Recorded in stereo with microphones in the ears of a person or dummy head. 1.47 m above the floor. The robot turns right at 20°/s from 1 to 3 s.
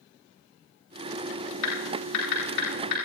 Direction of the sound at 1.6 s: 80° left.